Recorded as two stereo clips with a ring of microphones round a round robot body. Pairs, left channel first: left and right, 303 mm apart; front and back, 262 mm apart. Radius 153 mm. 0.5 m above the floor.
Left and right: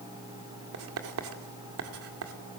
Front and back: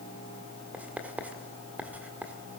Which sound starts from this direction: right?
Writing, at 0.7 s.